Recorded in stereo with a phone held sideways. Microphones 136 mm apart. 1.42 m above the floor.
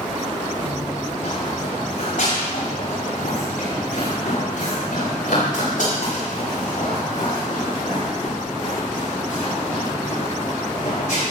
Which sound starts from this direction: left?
Running footsteps, at 0.6 s.